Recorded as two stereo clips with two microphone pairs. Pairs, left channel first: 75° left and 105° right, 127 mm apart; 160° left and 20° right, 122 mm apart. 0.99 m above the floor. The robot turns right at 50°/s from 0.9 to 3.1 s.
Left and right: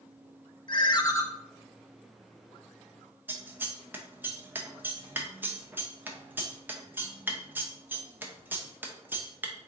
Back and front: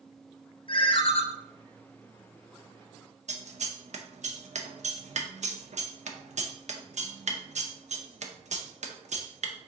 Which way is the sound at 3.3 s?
25° right.